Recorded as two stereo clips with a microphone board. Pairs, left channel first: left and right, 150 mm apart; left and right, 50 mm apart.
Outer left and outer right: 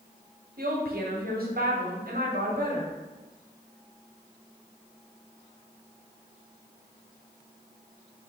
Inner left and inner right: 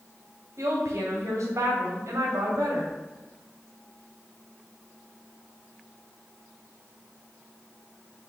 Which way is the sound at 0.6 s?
80° right.